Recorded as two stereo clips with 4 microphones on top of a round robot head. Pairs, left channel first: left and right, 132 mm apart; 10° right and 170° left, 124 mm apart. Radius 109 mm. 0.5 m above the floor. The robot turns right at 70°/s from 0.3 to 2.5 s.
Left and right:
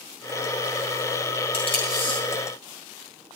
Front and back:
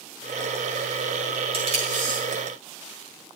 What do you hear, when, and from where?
1.5 s tape being pulled: 125° left, 8 m; by 2.2 s 170° left, 8 m